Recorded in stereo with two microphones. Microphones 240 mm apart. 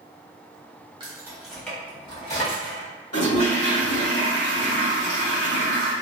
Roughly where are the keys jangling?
Centre.